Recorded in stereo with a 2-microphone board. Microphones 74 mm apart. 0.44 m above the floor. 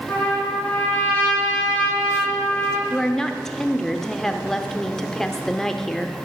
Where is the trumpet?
20° left (ahead or behind), 4.5 m.